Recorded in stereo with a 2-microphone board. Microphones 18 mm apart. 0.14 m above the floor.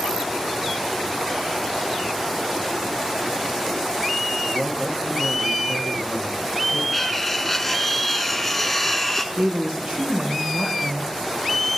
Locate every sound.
4.5 s a man speaking: 60° right (ahead or behind), 2.5 m
6.9 s cutlery clinking: 5° left (ahead or behind), 0.8 m
9.3 s a woman speaking: 65° right (ahead or behind), 3 m